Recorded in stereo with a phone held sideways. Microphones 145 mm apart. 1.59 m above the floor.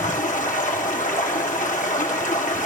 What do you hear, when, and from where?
0.0 s running water: 60° left (ahead or behind), 1.7 m